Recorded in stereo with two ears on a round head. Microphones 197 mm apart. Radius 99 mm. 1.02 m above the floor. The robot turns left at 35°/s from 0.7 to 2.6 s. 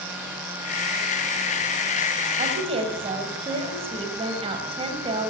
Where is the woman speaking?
35° right (ahead or behind), 6 m; by 5.3 s 25° right (ahead or behind), 6 m.